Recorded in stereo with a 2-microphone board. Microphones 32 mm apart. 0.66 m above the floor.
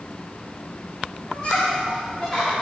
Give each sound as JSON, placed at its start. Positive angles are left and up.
{"t": 1.3, "sound": "laughter", "side_deg": 30, "distance_m": 1.6}